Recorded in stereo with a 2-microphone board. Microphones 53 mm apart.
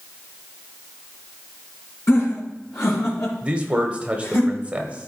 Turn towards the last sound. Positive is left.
turn(degrees=-25)  # may be behind; listen again after turning